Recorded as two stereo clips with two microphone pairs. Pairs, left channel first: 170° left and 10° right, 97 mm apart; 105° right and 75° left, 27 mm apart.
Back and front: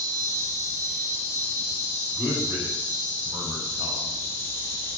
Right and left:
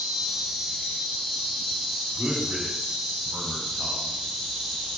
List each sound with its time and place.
0.0 s an insect: 165° left, 0.9 m
2.1 s a man speaking: 80° left, 1.0 m